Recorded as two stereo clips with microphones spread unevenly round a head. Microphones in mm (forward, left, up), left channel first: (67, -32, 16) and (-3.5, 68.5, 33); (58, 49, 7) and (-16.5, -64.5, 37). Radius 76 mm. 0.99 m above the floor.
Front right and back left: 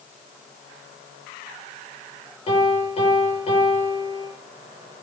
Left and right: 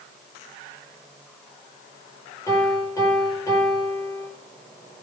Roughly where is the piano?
Ahead.